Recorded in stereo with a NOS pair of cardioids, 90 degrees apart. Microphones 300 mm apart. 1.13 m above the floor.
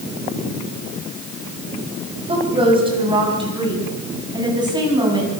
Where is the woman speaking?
20° right, 9 m; by 5.3 s 15° right, 11.5 m.